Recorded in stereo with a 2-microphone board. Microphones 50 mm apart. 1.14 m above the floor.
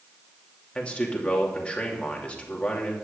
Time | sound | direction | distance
0.8 | a man speaking | 20° left (ahead or behind) | 2.5 m